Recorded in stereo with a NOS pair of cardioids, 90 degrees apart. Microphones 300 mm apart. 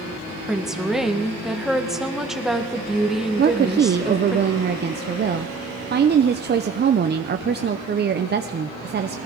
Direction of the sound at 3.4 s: 35° right.